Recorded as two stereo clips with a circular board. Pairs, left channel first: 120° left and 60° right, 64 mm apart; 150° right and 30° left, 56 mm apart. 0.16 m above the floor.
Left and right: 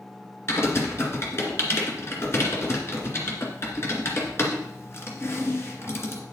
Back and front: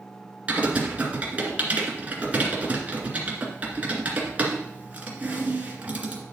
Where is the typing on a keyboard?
85° left, 2.5 m.